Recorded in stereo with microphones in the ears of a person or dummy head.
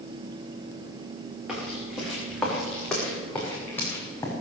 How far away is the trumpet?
No trumpet in this recording.